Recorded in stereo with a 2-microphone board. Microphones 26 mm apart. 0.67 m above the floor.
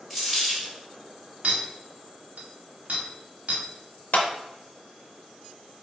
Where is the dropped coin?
10° right (ahead or behind), 1.8 m.